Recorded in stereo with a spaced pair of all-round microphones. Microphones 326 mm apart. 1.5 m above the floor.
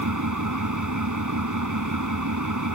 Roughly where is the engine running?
Right.